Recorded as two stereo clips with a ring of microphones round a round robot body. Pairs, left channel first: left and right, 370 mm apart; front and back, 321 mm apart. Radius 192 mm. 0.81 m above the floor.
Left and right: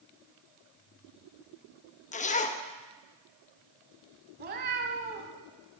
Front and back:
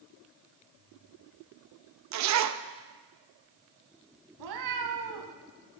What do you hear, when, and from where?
2.1 s a zipper: 160° left, 0.7 m
4.4 s a cat meowing: 150° right, 1.0 m